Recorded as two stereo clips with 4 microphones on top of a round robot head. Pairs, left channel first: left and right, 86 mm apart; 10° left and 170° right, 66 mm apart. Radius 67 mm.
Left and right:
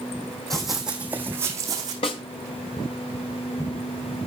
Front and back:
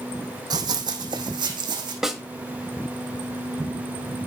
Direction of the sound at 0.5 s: 175° left.